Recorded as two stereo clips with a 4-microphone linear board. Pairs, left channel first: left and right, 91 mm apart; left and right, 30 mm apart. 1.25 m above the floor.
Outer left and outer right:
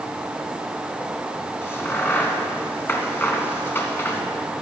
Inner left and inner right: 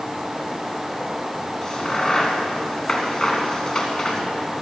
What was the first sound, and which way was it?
A crack, 25° left (ahead or behind).